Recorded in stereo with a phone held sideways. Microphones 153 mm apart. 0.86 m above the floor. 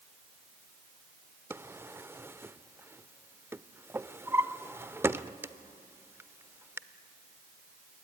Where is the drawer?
15° right (ahead or behind), 0.5 m.